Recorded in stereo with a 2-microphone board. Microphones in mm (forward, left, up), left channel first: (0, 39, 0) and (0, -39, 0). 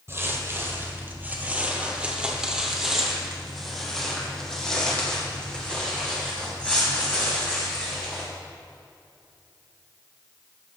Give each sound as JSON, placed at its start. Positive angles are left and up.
{"t": 0.1, "sound": "footsteps", "side_deg": -35, "distance_m": 1.7}